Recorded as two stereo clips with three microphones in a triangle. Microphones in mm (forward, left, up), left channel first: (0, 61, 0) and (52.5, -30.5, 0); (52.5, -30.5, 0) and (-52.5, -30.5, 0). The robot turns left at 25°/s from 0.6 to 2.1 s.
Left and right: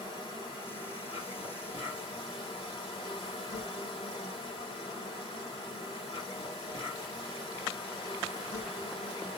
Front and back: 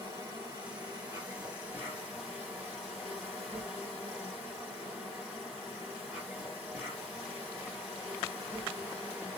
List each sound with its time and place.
0.0 s an insect: 140° left, 1.4 m; by 9.4 s 105° left, 1.4 m